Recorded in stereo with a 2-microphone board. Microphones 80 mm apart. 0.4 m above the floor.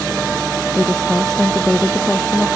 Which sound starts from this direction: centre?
A woman speaking, at 0.7 s.